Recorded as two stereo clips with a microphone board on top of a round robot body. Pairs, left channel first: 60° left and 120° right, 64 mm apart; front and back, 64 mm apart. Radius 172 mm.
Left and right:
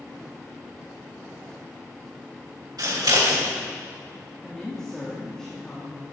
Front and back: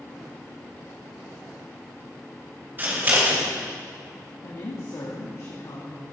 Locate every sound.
2.8 s scissors: 125° right, 4.5 m
4.4 s a woman speaking: 20° right, 2.5 m